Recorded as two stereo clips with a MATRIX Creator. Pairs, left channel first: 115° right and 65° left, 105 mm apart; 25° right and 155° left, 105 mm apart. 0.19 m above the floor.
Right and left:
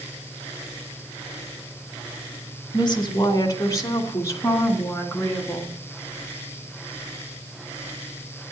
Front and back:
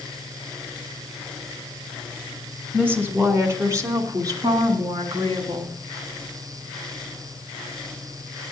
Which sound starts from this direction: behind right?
A woman speaking, at 2.7 s.